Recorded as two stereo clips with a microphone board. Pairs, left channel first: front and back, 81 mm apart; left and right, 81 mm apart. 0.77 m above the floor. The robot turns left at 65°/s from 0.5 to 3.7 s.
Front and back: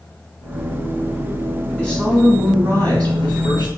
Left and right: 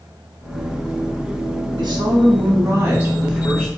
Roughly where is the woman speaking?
Right.